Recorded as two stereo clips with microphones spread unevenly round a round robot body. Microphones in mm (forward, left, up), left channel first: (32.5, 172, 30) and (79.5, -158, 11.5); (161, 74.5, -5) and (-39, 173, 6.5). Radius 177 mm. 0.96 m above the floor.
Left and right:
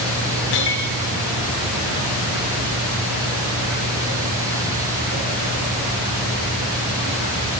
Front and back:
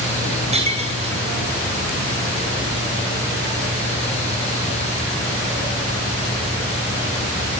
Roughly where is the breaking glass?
Left.